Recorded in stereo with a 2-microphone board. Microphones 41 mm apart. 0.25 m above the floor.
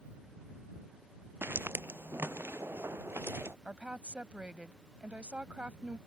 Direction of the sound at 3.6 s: 30° right (ahead or behind).